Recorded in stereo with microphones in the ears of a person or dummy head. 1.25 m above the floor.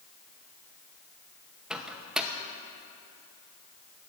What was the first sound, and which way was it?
A microwave, 5° right (ahead or behind).